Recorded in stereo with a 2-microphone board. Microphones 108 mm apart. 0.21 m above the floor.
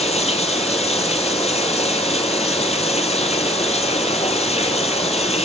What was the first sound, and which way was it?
Running water, 80° left.